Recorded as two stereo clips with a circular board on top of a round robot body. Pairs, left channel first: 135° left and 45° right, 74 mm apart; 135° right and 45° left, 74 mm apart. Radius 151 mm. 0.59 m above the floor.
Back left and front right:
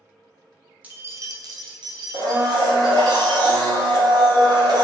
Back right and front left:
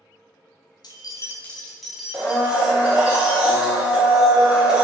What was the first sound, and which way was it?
Keys jangling, 115° right.